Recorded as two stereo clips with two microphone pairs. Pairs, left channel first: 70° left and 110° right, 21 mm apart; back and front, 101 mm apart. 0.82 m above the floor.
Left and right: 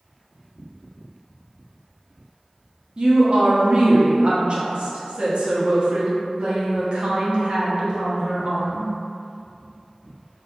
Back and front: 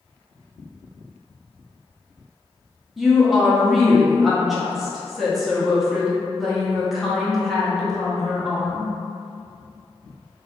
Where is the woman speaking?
90° right, 0.7 m.